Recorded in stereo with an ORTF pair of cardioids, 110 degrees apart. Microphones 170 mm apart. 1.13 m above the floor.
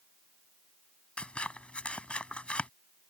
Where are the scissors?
5° left.